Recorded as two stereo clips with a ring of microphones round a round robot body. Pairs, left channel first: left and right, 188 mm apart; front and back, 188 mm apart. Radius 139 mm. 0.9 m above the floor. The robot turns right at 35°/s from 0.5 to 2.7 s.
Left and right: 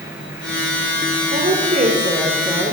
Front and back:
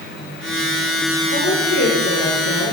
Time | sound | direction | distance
1.3 | a woman speaking | 55° right | 3 m